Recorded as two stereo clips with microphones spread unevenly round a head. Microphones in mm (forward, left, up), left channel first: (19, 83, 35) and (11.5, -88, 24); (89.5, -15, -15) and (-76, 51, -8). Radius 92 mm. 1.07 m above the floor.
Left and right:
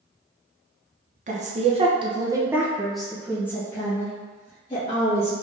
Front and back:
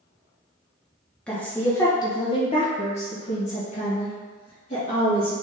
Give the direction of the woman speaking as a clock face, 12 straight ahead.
3 o'clock.